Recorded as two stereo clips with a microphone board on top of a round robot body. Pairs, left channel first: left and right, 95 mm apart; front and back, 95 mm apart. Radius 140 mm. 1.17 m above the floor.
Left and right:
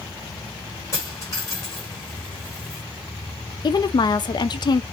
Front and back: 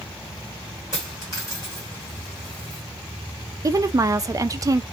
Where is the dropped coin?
45° left, 1.0 m.